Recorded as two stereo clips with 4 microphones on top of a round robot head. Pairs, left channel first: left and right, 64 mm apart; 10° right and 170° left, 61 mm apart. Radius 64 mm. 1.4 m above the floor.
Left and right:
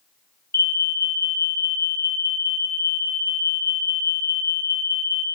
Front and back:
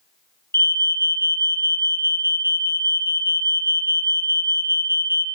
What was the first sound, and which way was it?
An alarm, 35° left.